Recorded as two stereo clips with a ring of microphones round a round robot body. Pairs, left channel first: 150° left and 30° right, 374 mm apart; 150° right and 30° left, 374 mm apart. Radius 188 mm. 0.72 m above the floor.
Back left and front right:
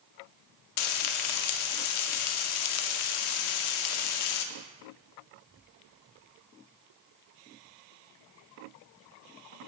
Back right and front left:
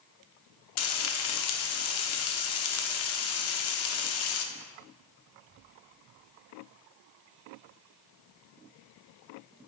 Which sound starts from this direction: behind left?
Frying, at 0.8 s.